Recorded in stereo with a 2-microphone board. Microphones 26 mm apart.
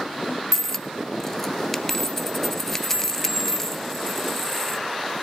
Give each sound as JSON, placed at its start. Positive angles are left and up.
{"t": 0.5, "sound": "a dropped coin", "side_deg": 10, "distance_m": 0.6}